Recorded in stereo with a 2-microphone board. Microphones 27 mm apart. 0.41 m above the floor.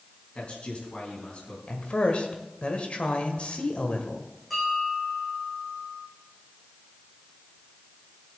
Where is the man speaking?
50° left (ahead or behind), 4 m.